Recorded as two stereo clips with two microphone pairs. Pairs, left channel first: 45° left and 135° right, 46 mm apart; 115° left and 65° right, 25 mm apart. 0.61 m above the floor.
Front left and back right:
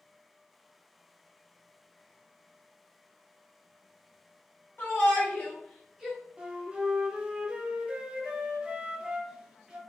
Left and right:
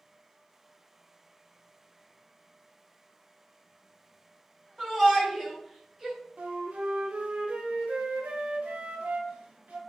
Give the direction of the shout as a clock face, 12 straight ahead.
11 o'clock.